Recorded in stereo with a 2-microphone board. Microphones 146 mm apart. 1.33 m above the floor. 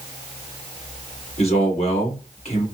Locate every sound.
1.4 s a man speaking: 50° left (ahead or behind), 1.8 m